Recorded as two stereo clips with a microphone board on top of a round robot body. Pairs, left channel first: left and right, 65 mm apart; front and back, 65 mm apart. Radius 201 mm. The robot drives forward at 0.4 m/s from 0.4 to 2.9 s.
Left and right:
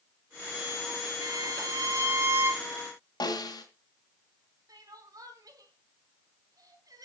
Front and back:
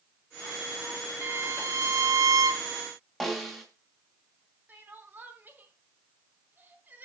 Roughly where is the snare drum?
Left.